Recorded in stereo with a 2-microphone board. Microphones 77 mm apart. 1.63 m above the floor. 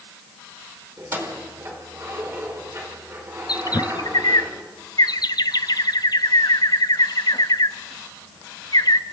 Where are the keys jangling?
35° right (ahead or behind), 4.5 m.